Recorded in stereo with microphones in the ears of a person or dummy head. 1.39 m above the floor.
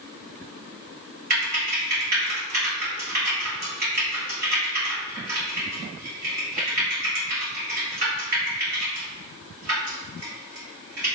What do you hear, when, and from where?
1.3 s typing on a keyboard: 50° right (ahead or behind), 1.5 m